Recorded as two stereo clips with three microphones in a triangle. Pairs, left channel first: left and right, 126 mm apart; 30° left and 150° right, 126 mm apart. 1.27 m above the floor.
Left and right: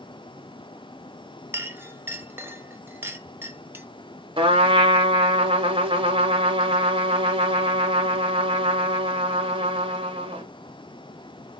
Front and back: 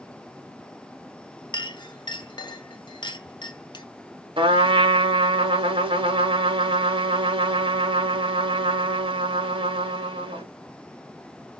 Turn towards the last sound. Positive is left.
turn(degrees=-120)